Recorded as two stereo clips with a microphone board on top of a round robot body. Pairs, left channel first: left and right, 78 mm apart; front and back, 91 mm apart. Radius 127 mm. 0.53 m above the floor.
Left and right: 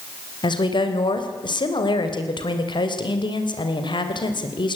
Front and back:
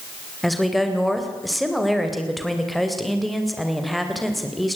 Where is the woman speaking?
90° left, 3 m.